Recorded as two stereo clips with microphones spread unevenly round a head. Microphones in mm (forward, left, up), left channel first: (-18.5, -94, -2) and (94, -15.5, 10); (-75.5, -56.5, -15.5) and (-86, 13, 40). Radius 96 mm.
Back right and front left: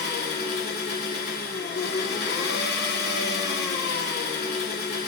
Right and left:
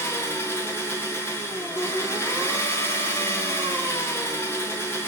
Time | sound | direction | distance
0.0 | an engine running | 155° right | 2 m